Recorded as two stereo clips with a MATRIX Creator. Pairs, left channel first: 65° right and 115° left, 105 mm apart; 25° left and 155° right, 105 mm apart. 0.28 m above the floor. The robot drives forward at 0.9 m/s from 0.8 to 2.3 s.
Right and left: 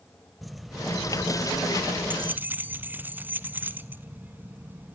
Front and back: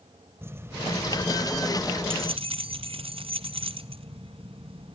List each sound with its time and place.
0.4 s keys jangling: 160° right, 0.7 m; by 5.0 s 175° right, 1.7 m